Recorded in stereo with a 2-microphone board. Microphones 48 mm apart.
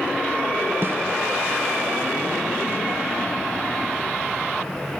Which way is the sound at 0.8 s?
50° right (ahead or behind).